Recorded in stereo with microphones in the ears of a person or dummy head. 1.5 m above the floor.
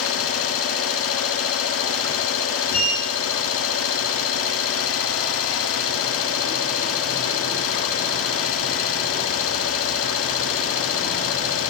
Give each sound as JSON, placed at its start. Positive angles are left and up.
{"t": 0.0, "sound": "an engine running", "side_deg": 85, "distance_m": 3.0}
{"t": 2.7, "sound": "a sliding door", "side_deg": 45, "distance_m": 8.0}